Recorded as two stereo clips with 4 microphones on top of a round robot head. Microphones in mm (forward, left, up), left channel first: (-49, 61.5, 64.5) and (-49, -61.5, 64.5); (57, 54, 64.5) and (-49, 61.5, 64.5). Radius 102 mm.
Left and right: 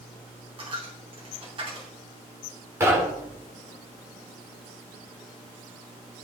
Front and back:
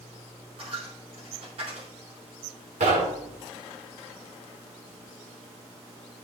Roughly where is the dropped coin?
Behind right.